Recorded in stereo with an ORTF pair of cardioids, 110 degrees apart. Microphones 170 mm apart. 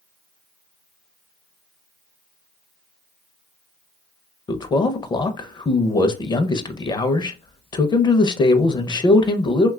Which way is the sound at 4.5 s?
25° left.